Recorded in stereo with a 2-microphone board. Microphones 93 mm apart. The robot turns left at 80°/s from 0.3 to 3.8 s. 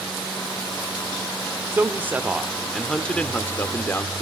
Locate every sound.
1.7 s a man speaking: 25° right (ahead or behind), 0.8 m; by 4.2 s 25° left (ahead or behind), 0.8 m